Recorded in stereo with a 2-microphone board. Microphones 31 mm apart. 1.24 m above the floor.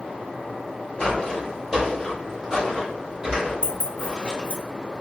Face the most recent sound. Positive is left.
turn(degrees=40)  # may be behind; listen again after turning